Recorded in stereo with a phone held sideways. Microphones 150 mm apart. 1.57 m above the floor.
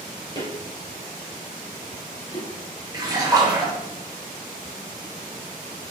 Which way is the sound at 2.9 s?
25° right (ahead or behind).